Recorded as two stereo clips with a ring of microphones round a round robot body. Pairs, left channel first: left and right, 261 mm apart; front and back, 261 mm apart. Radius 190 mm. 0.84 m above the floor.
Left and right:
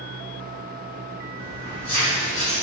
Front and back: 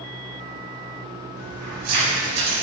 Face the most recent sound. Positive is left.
turn(degrees=160)